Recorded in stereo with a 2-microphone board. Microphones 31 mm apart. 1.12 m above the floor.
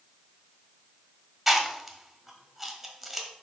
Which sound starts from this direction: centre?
Chewing, at 1.5 s.